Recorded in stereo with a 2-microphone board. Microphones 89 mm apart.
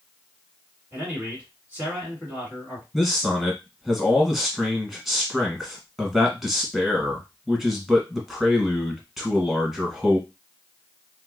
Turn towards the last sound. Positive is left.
turn(degrees=-5)  # may be behind; listen again after turning